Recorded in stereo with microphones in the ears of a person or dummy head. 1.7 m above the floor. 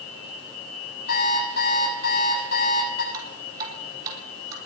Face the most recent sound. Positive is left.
turn(degrees=-25)  # may be behind; listen again after turning